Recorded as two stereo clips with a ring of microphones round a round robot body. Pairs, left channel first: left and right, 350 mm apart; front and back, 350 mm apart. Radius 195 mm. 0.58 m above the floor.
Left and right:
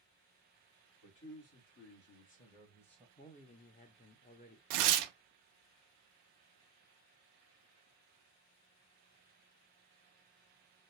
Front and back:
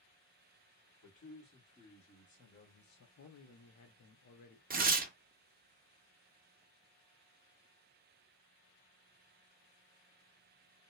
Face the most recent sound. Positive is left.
turn(degrees=-110)